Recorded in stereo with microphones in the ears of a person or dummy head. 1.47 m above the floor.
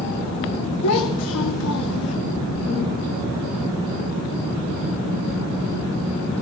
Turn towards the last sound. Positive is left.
turn(degrees=75)  # may be behind; listen again after turning